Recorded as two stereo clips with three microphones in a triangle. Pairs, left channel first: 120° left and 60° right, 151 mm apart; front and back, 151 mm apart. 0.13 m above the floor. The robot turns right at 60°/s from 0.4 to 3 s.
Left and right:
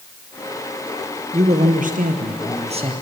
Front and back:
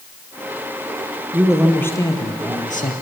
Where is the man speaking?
105° right, 2.5 m; by 2.9 s 10° right, 2.5 m.